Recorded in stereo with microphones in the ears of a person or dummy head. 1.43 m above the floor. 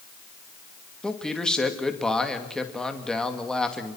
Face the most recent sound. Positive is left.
turn(degrees=0)  # may be behind; listen again after turning